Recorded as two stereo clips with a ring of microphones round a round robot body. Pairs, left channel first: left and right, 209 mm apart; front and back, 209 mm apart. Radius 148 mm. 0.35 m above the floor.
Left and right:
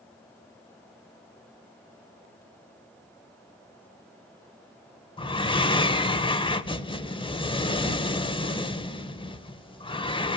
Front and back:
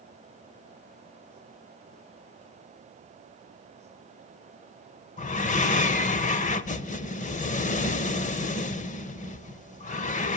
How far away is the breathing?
About 1.2 m.